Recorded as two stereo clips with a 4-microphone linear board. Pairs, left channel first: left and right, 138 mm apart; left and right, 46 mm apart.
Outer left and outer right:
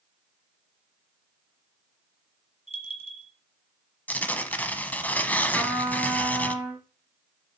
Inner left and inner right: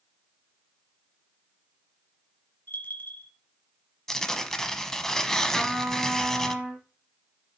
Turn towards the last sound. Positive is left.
turn(degrees=-10)  # may be behind; listen again after turning